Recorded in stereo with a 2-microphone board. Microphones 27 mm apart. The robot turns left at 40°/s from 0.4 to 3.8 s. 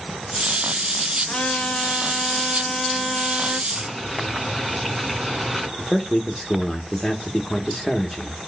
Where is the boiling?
5° left (ahead or behind), 3 m; by 5.7 s centre (ahead or behind), 3 m.